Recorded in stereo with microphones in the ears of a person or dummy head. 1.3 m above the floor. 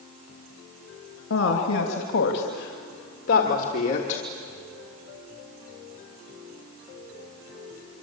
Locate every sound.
1.3 s a woman speaking: 75° left (ahead or behind), 2.5 m; by 4.2 s 40° left (ahead or behind), 2.5 m